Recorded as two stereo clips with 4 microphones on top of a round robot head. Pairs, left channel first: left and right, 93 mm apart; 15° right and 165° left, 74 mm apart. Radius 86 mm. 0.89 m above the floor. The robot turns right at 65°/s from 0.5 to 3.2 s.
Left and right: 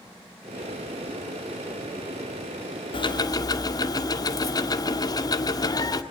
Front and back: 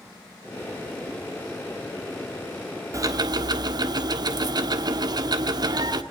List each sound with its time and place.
2.9 s ticking: 120° left, 1.5 m; by 6.0 s 140° left, 1.5 m